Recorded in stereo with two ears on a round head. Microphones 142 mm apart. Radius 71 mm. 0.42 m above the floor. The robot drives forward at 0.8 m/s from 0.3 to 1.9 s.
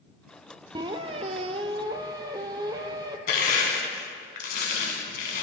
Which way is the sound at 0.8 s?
25° right (ahead or behind).